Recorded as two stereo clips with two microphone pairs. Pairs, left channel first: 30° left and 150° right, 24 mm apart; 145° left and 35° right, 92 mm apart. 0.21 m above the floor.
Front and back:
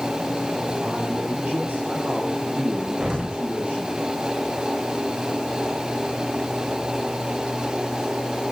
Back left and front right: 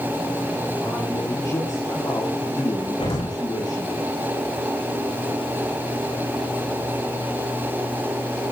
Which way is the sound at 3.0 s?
155° left.